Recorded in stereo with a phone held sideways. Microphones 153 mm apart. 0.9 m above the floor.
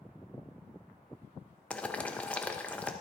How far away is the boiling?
About 0.8 m.